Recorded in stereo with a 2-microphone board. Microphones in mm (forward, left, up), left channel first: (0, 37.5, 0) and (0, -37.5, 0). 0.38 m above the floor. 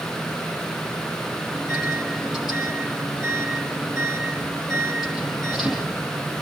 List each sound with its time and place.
1.5 s a microwave: 5° right (ahead or behind), 10 m